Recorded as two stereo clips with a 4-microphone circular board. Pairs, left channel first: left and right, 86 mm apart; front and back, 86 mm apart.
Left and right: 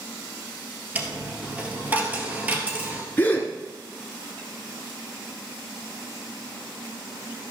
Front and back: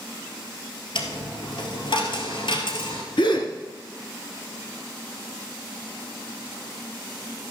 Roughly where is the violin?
No violin in this recording.